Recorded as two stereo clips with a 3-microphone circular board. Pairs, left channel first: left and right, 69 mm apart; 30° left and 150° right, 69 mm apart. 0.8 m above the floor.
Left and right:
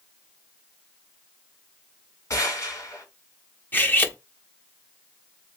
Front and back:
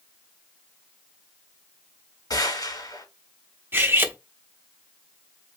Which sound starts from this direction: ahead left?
A gunshot, at 2.3 s.